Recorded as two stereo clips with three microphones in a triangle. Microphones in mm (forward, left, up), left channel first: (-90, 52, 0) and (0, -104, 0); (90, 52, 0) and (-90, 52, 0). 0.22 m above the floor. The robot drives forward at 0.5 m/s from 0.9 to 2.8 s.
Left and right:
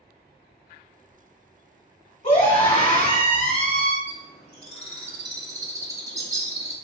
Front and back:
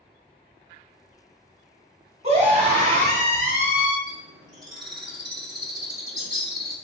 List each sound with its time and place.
2.2 s a scream: 150° left, 1.5 m; by 4.0 s 155° left, 1.7 m
4.1 s a bird: 170° left, 0.9 m